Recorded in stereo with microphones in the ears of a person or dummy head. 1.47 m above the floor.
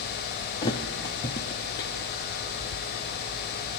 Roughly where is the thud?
Left.